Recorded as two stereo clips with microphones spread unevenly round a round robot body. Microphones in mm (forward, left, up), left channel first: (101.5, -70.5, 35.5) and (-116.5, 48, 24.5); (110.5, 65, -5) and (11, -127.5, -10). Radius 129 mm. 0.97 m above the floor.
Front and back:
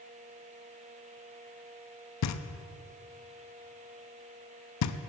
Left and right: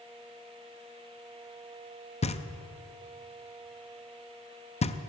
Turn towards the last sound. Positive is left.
turn(degrees=0)